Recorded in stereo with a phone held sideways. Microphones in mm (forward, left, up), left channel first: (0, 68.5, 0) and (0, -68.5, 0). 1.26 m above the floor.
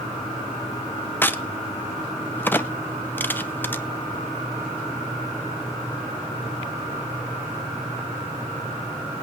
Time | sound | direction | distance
1.2 | a crack | 15° left (ahead or behind) | 0.7 m